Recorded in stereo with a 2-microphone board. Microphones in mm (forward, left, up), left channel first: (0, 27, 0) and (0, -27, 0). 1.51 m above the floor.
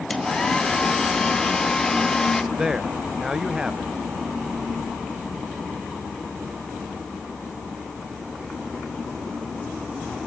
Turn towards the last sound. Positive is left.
turn(degrees=-10)  # may be behind; listen again after turning